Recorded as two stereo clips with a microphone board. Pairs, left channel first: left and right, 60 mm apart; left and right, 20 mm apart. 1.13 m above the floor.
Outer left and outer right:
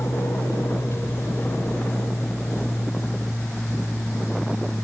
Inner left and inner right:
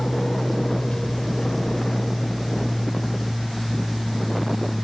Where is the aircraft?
50° left (ahead or behind); by 4.8 s 40° left (ahead or behind).